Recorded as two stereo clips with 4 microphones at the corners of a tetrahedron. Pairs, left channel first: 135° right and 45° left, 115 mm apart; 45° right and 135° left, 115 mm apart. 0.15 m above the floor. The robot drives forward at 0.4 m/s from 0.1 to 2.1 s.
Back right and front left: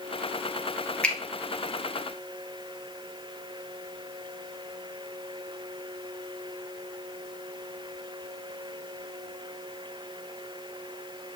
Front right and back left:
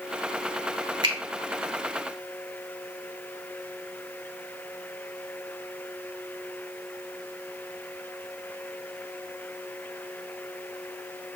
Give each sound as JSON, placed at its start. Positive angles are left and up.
{"t": 1.0, "sound": "a finger snap", "azimuth_deg": 150, "distance_m": 1.3}